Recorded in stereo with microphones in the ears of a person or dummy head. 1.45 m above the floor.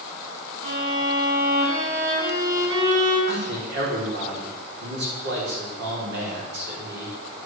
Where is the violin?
70° right (ahead or behind), 6.5 m.